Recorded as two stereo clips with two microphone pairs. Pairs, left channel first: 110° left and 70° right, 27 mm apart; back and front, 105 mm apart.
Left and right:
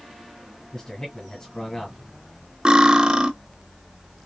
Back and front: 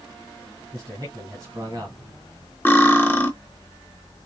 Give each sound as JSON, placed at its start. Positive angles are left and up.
{"t": 0.7, "sound": "a man speaking", "azimuth_deg": 50, "distance_m": 2.5}
{"t": 2.6, "sound": "cutlery clinking", "azimuth_deg": -120, "distance_m": 0.9}